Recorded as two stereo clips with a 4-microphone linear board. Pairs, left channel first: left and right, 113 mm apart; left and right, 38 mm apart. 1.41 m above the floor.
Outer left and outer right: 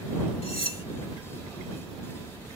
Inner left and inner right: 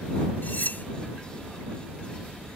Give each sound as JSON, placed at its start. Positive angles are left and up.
{"t": 0.4, "sound": "cutlery clinking", "side_deg": 55}